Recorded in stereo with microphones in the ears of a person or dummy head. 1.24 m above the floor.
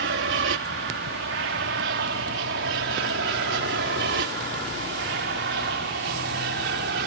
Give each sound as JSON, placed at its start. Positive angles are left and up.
{"t": 0.0, "sound": "an aircraft", "side_deg": -55}